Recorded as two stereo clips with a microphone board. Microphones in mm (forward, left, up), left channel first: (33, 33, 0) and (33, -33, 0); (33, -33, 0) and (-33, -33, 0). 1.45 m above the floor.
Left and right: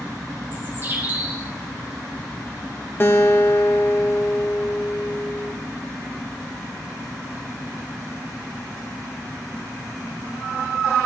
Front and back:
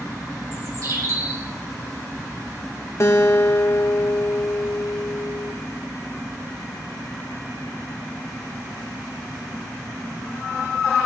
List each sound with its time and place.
0.5 s a bird: 150° right, 4 m
3.0 s a guitar: 35° left, 1.4 m